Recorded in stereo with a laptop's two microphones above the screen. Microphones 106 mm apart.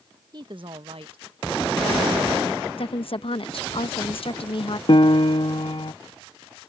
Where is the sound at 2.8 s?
60° left (ahead or behind).